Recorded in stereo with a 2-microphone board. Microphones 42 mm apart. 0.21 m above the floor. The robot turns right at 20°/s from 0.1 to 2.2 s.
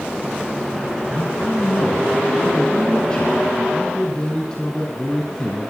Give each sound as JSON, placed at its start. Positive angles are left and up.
{"t": 1.1, "sound": "a man speaking", "side_deg": 35, "distance_m": 1.9}